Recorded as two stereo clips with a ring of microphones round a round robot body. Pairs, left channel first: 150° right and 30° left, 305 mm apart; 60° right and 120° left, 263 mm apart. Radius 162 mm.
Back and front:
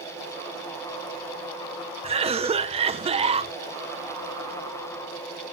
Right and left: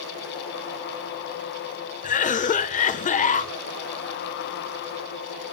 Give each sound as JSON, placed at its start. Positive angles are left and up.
{"t": 2.0, "sound": "a cough", "azimuth_deg": -25, "distance_m": 0.9}